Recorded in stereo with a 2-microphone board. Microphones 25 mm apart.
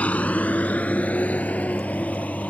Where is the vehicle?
70° left (ahead or behind); by 2.5 s 85° left.